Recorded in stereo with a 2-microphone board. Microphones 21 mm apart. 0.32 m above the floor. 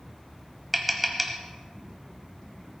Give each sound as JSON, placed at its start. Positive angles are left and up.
{"t": 0.7, "sound": "tapping", "side_deg": -5, "distance_m": 1.3}